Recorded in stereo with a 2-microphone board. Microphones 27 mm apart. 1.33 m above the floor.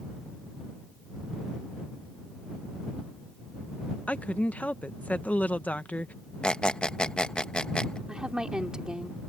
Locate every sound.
4.1 s a woman speaking: 60° left (ahead or behind)
6.4 s a squeak: 40° left (ahead or behind)
8.1 s a woman speaking: 25° right (ahead or behind)